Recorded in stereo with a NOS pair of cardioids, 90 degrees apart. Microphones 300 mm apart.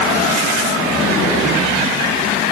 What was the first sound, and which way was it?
Only background noise.